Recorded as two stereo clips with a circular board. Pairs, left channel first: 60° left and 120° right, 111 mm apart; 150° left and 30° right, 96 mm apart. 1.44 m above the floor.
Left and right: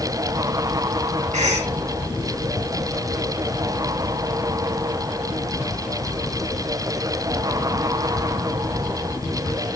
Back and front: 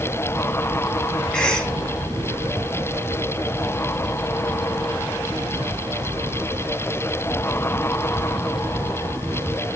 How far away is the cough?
About 2.5 m.